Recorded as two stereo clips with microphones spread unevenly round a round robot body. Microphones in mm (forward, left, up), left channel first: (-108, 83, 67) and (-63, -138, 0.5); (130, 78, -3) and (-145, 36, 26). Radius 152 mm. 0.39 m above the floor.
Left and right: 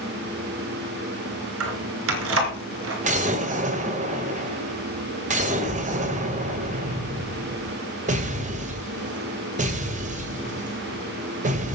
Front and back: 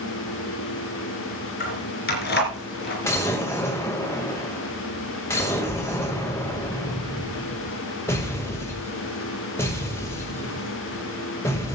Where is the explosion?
65° right, 2 m.